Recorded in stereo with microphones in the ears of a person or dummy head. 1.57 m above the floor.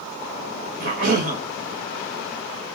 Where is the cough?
50° right (ahead or behind), 1.9 m.